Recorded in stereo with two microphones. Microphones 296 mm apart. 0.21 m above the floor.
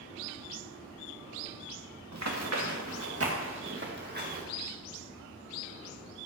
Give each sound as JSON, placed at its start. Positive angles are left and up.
{"t": 2.1, "sound": "running footsteps", "side_deg": -65, "distance_m": 2.0}